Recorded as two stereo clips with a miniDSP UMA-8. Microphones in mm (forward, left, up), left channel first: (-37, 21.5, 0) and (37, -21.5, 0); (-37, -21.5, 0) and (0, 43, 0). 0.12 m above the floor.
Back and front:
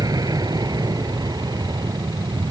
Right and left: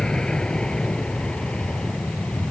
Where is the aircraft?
40° right; by 2.5 s 45° right.